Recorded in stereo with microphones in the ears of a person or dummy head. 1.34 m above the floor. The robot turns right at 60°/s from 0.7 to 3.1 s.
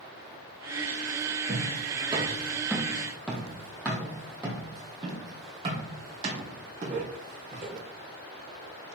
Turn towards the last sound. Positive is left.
turn(degrees=-45)  # may be behind; listen again after turning